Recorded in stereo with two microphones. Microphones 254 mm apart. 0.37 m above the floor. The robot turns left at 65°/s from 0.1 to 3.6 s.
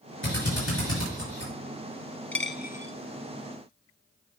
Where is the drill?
50° left (ahead or behind), 5.5 m; by 1.5 s 45° left (ahead or behind), 5.5 m.